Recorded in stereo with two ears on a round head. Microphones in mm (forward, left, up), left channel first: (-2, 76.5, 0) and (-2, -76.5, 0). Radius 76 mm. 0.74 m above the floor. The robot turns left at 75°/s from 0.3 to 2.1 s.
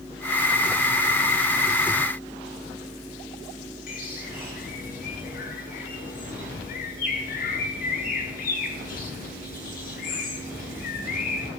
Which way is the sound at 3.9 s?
55° left (ahead or behind).